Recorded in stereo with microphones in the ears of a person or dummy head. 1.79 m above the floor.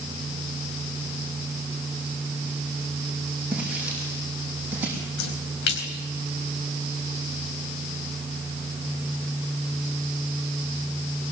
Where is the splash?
60° left (ahead or behind), 4 m.